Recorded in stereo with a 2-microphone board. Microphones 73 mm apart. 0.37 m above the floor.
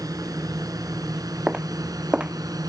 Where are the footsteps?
15° right (ahead or behind).